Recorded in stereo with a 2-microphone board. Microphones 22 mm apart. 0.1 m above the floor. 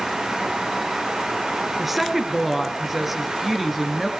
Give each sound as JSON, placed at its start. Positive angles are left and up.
{"t": 1.8, "sound": "a woman speaking", "side_deg": -10, "distance_m": 1.4}